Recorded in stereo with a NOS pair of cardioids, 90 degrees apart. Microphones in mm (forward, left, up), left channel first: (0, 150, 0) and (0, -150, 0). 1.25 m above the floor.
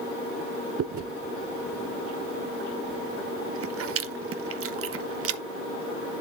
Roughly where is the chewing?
Ahead right.